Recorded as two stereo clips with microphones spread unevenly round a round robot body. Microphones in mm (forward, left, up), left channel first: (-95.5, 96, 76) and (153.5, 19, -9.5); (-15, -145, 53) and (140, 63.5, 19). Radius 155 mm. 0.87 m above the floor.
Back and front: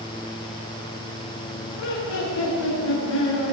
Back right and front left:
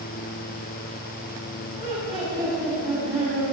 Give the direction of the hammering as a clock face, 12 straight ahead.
I don't hear hammering.